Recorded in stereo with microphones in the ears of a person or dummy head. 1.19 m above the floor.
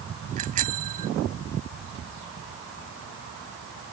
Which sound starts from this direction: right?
A bicycle bell, at 0.4 s.